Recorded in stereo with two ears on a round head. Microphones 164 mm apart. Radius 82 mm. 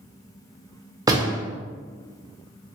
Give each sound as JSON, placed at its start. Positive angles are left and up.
{"t": 1.1, "sound": "a door slam", "side_deg": -20, "distance_m": 0.6}